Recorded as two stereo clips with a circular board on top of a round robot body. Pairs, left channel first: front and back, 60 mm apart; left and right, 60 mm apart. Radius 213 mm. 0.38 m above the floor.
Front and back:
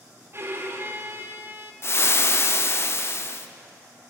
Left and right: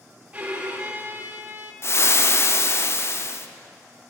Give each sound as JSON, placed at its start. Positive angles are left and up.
{"t": 0.3, "sound": "a violin", "azimuth_deg": -155, "distance_m": 1.6}
{"t": 1.8, "sound": "frying", "azimuth_deg": 45, "distance_m": 0.7}